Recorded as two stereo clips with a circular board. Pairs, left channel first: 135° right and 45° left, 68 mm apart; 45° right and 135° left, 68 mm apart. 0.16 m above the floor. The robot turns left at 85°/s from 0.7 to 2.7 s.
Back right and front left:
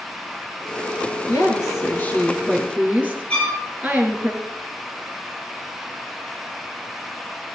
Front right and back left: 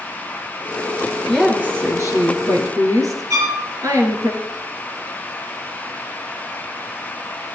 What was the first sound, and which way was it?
A woman speaking, 130° right.